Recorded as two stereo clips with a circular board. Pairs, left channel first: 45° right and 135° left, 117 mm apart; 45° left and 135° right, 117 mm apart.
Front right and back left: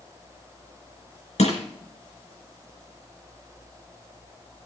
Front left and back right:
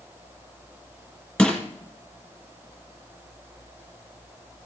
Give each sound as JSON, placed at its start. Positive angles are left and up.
{"t": 1.4, "sound": "crushing", "azimuth_deg": -35, "distance_m": 4.5}